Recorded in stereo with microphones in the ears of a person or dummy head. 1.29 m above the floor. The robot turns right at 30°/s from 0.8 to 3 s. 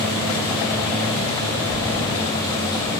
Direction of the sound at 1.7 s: 70° right (ahead or behind).